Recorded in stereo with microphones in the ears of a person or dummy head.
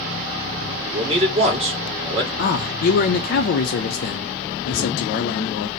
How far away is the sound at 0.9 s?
About 1.8 m.